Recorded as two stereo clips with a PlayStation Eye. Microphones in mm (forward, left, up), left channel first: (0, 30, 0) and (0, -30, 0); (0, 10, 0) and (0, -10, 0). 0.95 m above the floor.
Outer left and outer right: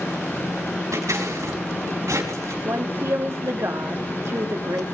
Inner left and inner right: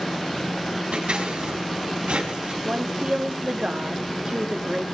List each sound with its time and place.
0.9 s scissors: 60° right (ahead or behind), 5 m
2.6 s a woman speaking: 55° right (ahead or behind), 2 m